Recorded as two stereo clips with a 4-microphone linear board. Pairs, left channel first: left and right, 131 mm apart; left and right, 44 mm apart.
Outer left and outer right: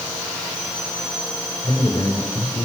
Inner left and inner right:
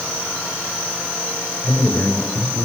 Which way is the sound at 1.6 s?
30° left (ahead or behind).